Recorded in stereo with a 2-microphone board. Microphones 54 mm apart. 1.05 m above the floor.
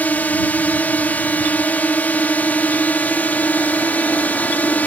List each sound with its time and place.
0.0 s a drone: 30° left (ahead or behind)